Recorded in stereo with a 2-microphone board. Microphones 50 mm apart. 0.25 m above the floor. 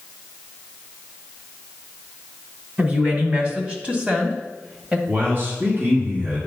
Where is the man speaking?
40° right (ahead or behind), 2 m.